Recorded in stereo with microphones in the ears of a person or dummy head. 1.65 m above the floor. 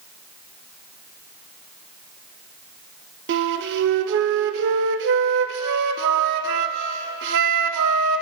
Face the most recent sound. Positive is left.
turn(degrees=-65)  # may be behind; listen again after turning